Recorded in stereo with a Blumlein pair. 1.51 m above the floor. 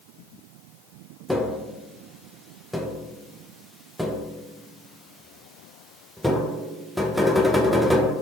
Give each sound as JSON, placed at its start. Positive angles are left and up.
{"t": 1.3, "sound": "tapping", "azimuth_deg": 0, "distance_m": 0.7}